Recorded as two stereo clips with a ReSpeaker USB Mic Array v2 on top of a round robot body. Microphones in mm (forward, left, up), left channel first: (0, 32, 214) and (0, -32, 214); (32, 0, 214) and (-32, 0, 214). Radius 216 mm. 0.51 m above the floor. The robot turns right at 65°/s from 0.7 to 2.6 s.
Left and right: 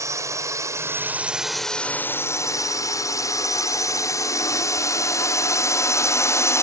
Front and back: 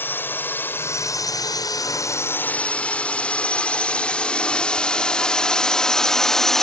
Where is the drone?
55° right; by 6.6 s 85° left.